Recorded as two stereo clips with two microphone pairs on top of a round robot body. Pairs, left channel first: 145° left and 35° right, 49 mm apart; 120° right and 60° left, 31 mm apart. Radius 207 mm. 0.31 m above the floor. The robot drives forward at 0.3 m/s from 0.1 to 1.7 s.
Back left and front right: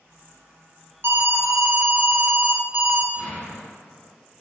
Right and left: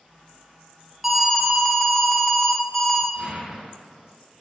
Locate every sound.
1.0 s an alarm: 35° right, 0.8 m; by 3.0 s 50° right, 0.7 m
3.1 s an explosion: 165° left, 1.2 m